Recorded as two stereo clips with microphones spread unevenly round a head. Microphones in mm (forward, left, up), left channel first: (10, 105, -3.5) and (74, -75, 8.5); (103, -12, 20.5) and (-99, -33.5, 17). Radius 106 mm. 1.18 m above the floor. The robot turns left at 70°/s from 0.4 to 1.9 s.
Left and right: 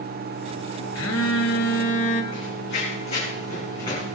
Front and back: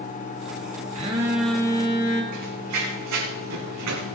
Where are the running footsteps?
165° left, 5 m; by 4.2 s 175° right, 6 m.